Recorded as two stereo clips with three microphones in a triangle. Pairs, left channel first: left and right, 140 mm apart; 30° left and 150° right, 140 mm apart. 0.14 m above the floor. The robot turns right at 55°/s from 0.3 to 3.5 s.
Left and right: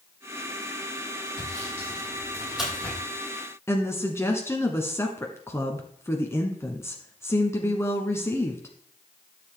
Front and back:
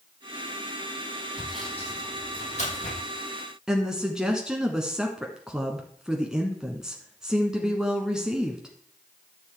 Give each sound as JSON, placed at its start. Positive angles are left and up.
{"t": 1.4, "sound": "sawing", "azimuth_deg": -70, "distance_m": 5.5}
{"t": 3.7, "sound": "a woman speaking", "azimuth_deg": 130, "distance_m": 1.2}